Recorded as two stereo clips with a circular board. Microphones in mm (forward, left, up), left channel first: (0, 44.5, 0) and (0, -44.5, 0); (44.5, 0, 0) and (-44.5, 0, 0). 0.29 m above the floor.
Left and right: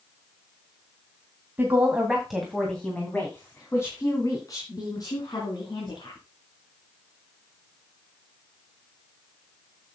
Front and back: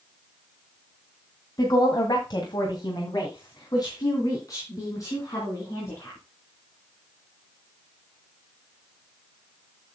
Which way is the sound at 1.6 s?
25° right.